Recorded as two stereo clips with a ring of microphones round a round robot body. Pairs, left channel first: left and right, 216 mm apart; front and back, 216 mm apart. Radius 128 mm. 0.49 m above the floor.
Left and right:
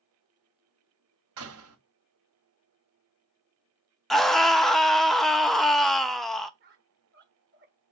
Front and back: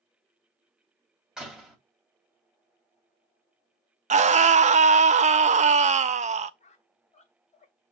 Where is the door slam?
95° right, 1.9 m.